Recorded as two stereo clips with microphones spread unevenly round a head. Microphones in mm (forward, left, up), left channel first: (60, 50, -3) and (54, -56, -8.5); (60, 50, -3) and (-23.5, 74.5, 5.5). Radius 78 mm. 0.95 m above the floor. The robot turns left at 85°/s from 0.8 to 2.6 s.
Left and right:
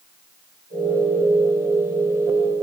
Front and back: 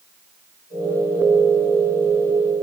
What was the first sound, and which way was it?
Only background noise.